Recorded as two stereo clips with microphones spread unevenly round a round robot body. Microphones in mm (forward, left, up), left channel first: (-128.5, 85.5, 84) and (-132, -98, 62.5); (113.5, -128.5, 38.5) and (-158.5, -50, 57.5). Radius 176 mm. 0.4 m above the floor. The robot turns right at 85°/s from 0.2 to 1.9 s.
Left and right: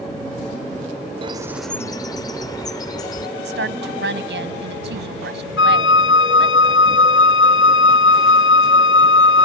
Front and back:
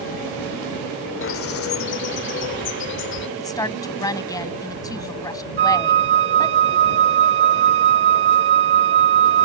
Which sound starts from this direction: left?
A flute, at 5.6 s.